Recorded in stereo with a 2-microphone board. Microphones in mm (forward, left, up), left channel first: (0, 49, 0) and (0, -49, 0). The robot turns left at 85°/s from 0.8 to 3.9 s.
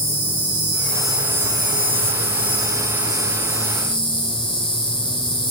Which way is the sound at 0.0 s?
25° left.